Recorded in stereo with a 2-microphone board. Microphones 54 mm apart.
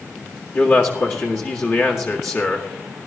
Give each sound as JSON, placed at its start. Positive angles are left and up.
{"t": 0.5, "sound": "a man speaking", "side_deg": 50, "distance_m": 1.9}